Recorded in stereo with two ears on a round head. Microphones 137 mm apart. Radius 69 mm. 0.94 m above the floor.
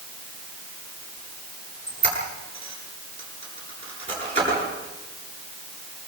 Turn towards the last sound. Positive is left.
turn(degrees=-40)  # may be behind; listen again after turning